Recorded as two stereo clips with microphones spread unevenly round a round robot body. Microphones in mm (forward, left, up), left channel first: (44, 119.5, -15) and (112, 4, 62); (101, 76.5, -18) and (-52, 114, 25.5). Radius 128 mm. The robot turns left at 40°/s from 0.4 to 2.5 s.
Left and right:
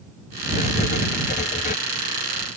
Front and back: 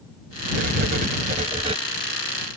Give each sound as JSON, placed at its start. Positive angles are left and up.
{"t": 0.5, "sound": "writing", "azimuth_deg": 165}